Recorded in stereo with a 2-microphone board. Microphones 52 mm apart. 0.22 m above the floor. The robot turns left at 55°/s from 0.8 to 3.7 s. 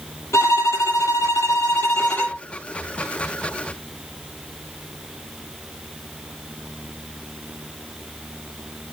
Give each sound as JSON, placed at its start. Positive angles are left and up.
{"t": 0.3, "sound": "a violin", "azimuth_deg": 110, "distance_m": 6.0}